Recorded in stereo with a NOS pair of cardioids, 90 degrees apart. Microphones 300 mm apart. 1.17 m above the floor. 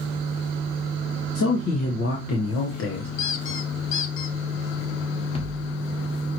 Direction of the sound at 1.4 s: 60° left.